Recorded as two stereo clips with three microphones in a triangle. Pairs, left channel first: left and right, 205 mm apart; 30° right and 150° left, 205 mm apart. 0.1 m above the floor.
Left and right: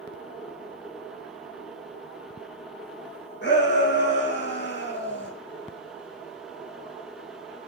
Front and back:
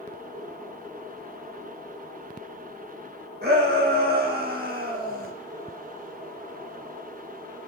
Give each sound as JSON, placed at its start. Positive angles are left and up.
{"t": 3.4, "sound": "a shout", "azimuth_deg": 115, "distance_m": 6.0}